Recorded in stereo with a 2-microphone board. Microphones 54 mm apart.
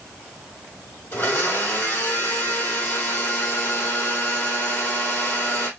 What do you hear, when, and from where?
1.1 s a blender: 45° left (ahead or behind), 2.5 m